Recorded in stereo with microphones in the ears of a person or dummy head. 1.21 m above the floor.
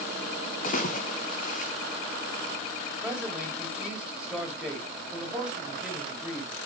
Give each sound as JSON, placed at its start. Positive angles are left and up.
{"t": 0.6, "sound": "a splash", "side_deg": 45, "distance_m": 1.6}
{"t": 3.0, "sound": "a man speaking", "side_deg": -5, "distance_m": 2.5}